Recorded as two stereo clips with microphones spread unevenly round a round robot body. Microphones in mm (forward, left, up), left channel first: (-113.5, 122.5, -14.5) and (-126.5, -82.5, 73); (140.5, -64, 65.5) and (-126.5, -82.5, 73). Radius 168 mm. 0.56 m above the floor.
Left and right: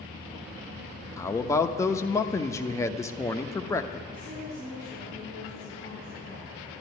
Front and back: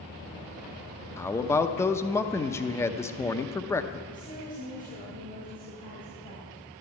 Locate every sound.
1.2 s a man speaking: 75° left, 0.7 m
4.1 s a woman speaking: 55° right, 4 m